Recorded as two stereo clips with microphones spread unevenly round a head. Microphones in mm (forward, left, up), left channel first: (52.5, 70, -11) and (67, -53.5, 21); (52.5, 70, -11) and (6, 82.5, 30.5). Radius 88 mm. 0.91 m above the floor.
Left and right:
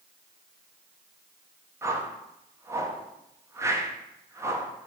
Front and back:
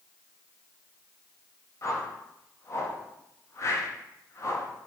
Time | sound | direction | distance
1.8 | a whoosh | 15° right | 0.6 m